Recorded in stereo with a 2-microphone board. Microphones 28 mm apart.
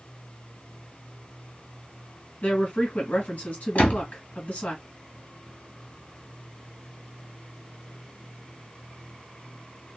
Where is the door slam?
55° left (ahead or behind), 1.7 m.